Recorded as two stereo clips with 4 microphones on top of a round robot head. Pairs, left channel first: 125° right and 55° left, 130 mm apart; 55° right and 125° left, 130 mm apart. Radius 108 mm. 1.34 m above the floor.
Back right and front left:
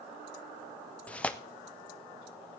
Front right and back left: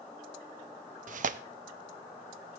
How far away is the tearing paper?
About 0.6 m.